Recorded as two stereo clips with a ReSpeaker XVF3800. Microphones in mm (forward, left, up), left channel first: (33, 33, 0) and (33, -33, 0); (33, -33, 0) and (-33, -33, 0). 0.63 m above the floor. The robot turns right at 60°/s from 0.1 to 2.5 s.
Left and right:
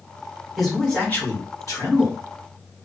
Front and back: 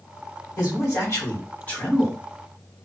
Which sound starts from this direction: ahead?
A man speaking, at 0.6 s.